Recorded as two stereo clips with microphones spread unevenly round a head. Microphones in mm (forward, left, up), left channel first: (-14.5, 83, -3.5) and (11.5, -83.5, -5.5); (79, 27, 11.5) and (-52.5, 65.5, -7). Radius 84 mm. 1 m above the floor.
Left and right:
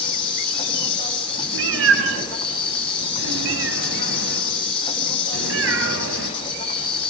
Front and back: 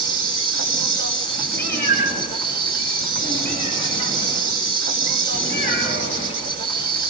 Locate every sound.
0.0 s an insect: 160° left, 6 m
1.5 s a cat meowing: 90° right, 6 m